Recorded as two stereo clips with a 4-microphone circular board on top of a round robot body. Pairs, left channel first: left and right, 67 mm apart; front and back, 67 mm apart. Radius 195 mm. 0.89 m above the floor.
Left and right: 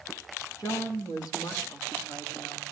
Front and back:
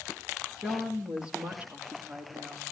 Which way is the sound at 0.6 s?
100° left.